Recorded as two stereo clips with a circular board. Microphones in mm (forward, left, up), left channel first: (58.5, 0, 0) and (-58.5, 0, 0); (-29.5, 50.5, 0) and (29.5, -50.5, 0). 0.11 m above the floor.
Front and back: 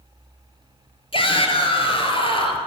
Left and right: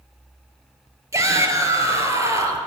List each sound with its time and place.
1.1 s a shout: 5° right, 2.0 m